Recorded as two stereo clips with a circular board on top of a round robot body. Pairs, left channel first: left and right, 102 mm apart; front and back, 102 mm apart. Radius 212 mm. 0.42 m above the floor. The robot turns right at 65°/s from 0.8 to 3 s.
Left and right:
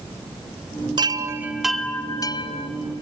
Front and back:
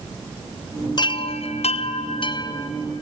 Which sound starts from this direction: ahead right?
A chime, at 1.0 s.